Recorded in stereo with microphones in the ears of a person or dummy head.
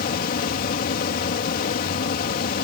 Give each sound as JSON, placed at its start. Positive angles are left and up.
{"t": 0.0, "sound": "a fan", "side_deg": 55}